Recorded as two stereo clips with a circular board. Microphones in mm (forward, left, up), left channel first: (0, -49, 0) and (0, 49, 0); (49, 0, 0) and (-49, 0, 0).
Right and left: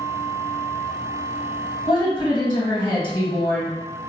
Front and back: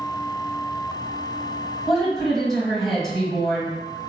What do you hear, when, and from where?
1.9 s a woman speaking: 85° right, 1.9 m